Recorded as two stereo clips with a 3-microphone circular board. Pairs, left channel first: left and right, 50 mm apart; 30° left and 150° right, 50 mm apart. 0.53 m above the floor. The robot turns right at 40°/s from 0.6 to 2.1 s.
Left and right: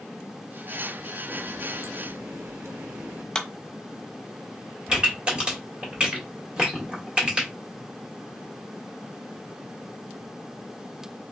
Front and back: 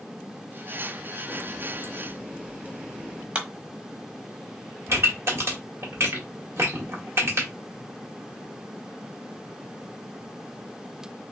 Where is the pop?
155° right, 1.7 m.